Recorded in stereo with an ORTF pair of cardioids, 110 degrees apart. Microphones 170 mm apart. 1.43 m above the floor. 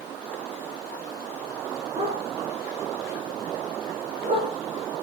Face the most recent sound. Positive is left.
turn(degrees=-40)